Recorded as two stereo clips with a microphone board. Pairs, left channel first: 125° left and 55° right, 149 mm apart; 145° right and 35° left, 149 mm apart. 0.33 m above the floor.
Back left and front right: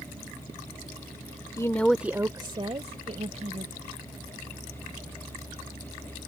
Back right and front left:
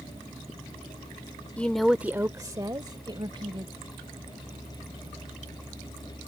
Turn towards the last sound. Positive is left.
turn(degrees=-20)